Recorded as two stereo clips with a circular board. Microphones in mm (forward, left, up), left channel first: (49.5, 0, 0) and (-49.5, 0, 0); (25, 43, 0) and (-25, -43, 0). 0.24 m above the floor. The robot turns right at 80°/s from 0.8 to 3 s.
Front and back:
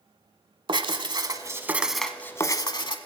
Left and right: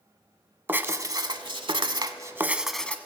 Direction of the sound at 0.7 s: 175° left.